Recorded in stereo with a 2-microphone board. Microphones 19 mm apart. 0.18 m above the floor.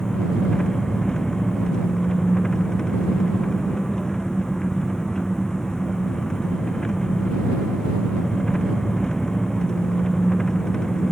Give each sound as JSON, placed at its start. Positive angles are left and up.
{"t": 0.0, "sound": "an engine running", "side_deg": 40}